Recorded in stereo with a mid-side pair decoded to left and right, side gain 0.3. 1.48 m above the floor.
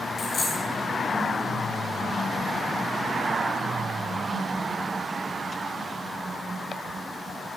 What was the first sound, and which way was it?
A dropped coin, 65° left.